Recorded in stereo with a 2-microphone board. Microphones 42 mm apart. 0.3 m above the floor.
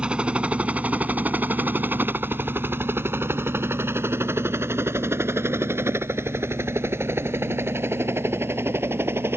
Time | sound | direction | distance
0.0 | a helicopter | 25° right (ahead or behind) | ?